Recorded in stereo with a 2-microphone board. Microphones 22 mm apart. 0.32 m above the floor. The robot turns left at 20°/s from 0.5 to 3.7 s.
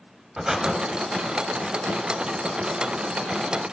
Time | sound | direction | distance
0.4 | breathing | 25° right (ahead or behind) | 1.2 m